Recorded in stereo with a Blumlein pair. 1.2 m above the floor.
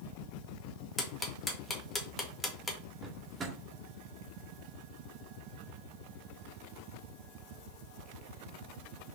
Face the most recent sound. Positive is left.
turn(degrees=-20)